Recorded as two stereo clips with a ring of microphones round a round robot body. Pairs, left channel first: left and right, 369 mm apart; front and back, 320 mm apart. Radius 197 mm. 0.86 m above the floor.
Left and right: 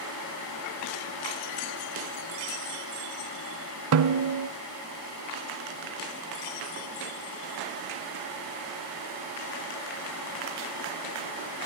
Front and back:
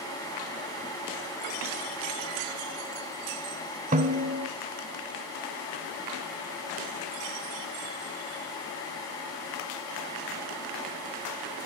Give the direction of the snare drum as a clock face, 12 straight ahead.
4 o'clock.